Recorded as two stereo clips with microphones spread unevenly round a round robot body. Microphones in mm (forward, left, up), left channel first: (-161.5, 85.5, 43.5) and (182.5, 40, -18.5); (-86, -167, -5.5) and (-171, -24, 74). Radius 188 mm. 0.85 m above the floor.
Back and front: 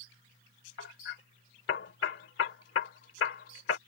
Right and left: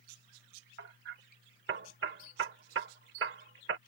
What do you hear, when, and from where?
0.8 s hammering: 115° left